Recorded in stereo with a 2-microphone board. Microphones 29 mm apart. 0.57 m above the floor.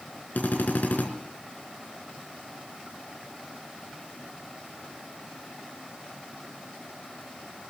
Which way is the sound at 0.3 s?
90° left.